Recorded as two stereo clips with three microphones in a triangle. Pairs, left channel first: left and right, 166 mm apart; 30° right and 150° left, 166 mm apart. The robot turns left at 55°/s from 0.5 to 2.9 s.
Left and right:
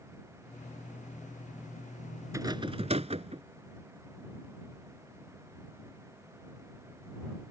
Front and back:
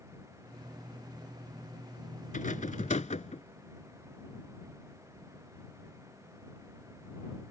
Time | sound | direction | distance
2.3 | a rattle | 25° right | ?